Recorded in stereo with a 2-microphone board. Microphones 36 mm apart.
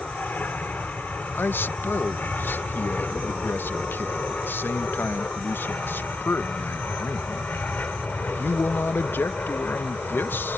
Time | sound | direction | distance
0.0 | an aircraft | 50° left (ahead or behind) | ?
1.4 | a man speaking | 70° left (ahead or behind) | ?